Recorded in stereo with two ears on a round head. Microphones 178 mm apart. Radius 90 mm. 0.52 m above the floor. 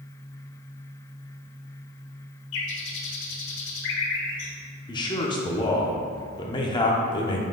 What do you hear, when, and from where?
2.5 s a bird: 65° left (ahead or behind), 1.2 m
4.9 s a man speaking: 25° left (ahead or behind), 0.9 m